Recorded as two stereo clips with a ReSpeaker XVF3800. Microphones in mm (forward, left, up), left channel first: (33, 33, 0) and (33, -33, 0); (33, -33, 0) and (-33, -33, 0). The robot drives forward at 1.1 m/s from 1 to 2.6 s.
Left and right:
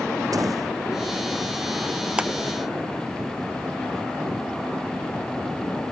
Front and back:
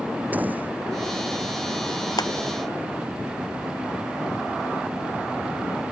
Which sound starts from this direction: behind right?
A door slam, at 0.3 s.